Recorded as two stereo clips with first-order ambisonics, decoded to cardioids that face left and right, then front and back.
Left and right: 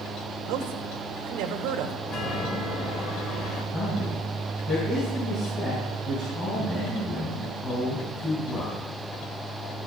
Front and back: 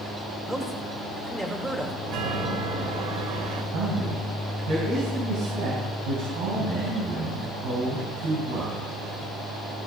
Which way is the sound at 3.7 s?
160° left.